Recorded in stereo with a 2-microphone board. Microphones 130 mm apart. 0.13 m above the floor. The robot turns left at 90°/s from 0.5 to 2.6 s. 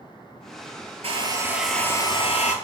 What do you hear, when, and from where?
1.0 s a hair dryer: 120° right, 0.7 m; by 2.5 s 100° left, 0.7 m